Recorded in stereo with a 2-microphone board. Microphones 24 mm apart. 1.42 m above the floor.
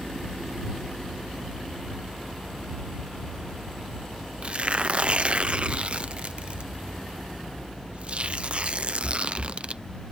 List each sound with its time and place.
4.4 s tearing paper: 45° right (ahead or behind)